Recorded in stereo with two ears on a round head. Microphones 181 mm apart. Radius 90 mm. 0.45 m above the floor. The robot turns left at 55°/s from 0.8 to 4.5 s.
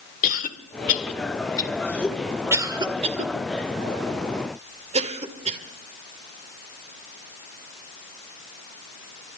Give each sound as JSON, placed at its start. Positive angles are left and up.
{"t": 0.2, "sound": "a cough", "side_deg": 40, "distance_m": 1.7}